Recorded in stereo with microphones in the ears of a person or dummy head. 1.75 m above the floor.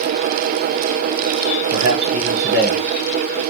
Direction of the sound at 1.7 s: 45° right (ahead or behind).